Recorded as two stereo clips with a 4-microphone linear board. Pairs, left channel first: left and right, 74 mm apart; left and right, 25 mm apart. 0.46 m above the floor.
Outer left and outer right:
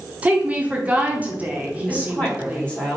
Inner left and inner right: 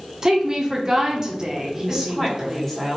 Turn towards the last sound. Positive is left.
turn(degrees=15)  # may be behind; listen again after turning